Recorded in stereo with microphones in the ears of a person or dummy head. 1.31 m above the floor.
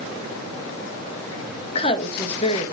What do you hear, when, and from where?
1.7 s a woman speaking: 30° left (ahead or behind), 1.6 m